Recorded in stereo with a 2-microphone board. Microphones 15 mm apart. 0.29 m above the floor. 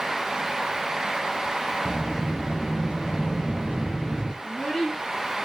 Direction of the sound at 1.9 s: 75° left (ahead or behind).